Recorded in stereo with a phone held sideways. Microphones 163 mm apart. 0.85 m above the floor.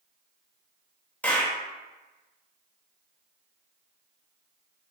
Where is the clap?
10° left (ahead or behind), 1.1 m.